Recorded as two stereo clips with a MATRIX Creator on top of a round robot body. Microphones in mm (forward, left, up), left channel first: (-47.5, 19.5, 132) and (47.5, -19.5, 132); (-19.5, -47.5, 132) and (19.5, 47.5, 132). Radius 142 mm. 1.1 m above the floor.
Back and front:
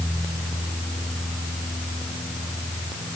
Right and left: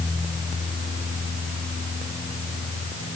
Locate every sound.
Only background noise.